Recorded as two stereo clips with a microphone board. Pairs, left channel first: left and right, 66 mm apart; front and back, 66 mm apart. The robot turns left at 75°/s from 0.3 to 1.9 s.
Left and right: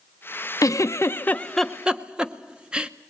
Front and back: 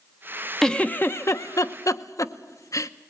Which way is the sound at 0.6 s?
80° left.